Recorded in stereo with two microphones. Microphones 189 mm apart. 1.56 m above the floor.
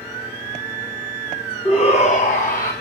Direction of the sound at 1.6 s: 30° left (ahead or behind).